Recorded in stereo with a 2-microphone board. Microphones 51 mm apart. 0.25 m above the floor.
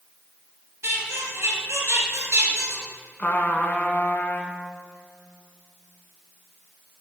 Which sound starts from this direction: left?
A trumpet, at 3.2 s.